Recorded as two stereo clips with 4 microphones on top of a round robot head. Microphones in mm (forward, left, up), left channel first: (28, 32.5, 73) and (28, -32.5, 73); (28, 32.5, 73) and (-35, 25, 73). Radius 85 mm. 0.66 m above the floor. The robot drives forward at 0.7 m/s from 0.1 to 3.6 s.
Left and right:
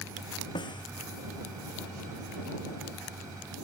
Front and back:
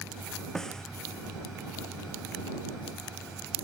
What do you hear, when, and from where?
0.6 s a snare drum: 90° left